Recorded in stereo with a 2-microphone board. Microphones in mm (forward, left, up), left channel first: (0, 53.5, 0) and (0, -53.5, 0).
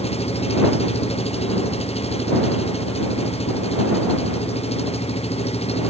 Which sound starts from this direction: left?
An engine running, at 0.0 s.